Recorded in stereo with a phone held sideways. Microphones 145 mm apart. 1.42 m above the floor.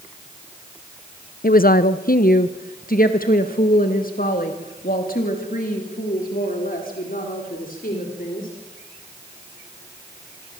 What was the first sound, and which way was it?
A woman speaking, 80° left.